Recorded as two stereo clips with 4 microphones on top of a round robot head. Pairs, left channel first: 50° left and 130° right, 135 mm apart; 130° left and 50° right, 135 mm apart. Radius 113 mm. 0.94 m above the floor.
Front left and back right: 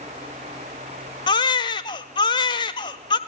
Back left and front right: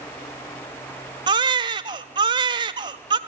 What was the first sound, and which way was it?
A baby crying, straight ahead.